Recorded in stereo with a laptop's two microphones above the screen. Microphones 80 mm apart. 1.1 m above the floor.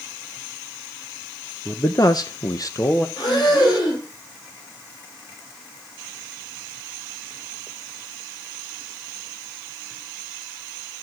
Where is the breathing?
65° left (ahead or behind), 5 m.